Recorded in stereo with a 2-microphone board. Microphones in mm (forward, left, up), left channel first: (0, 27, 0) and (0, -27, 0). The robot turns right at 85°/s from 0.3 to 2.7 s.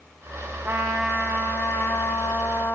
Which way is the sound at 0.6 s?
30° right.